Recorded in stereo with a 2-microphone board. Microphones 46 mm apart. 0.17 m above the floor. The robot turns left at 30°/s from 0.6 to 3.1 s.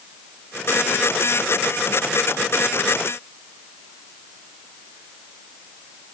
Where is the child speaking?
No child speaking in this recording.